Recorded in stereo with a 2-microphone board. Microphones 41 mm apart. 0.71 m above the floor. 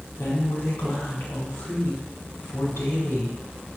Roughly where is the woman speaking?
Left.